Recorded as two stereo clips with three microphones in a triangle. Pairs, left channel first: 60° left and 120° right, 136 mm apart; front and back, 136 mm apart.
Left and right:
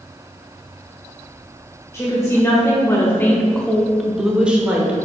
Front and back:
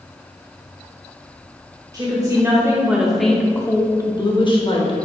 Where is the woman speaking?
125° left, 1.3 m; by 5.0 s 40° right, 1.4 m.